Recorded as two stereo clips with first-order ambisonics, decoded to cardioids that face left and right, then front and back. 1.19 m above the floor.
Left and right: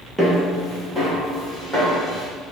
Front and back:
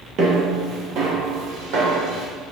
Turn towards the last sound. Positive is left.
turn(degrees=175)